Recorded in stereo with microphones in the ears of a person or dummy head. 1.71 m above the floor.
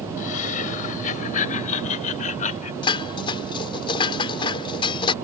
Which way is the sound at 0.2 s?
45° left (ahead or behind).